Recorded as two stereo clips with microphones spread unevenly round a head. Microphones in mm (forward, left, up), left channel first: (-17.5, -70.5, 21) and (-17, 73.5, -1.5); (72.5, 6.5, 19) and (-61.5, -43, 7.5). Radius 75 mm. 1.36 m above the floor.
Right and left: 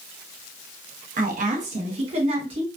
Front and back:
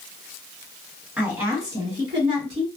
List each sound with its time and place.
1.2 s a woman speaking: 120° left, 1.2 m; by 2.7 s 145° left, 1.9 m